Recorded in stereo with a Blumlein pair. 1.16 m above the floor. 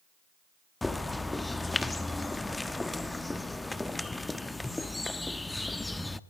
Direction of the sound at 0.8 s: 5° left.